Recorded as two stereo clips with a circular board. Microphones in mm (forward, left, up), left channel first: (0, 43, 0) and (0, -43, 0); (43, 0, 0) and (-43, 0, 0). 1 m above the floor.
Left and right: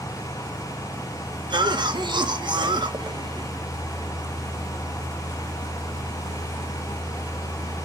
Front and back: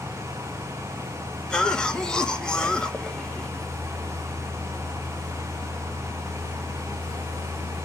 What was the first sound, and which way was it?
A cough, 80° right.